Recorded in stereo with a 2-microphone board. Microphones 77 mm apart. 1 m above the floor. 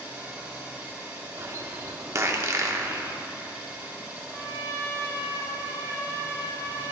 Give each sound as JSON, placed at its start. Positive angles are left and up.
{"t": 0.0, "sound": "an engine running", "side_deg": -20, "distance_m": 1.3}
{"t": 1.4, "sound": "a bird", "side_deg": -40, "distance_m": 0.8}
{"t": 4.3, "sound": "a trumpet", "side_deg": 35, "distance_m": 1.0}